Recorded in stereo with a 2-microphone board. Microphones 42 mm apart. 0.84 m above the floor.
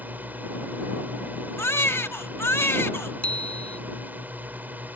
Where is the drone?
40° right (ahead or behind).